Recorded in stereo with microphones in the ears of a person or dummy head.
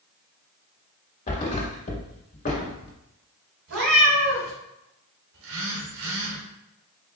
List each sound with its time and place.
1.3 s a thud: 45° left (ahead or behind), 2.0 m
3.7 s a cat meowing: 70° right (ahead or behind), 2.5 m
5.3 s a phone buzzing: 65° right (ahead or behind), 1.1 m